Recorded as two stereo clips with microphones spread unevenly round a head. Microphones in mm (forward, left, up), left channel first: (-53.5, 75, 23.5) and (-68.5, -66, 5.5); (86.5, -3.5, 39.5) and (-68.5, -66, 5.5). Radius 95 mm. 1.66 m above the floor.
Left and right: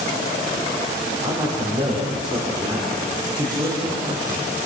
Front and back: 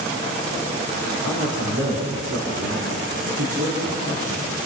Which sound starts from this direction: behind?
A man speaking, at 1.2 s.